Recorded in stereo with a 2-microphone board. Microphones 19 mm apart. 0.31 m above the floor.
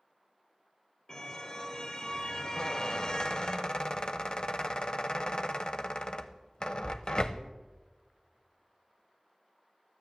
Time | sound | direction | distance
1.1 | a car horn | 40° left (ahead or behind) | 3 m
2.6 | a squeak | 40° left (ahead or behind) | 0.7 m